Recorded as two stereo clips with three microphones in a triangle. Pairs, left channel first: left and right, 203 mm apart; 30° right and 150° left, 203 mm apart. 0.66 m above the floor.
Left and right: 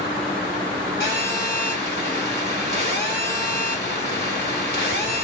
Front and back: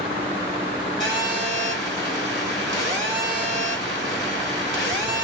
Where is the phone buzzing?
130° left, 1.7 m.